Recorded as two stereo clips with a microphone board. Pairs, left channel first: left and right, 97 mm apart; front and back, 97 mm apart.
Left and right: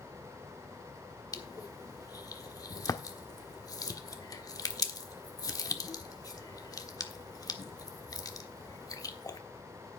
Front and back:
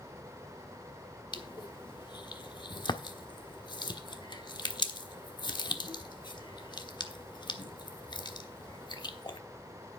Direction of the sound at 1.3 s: 40° left.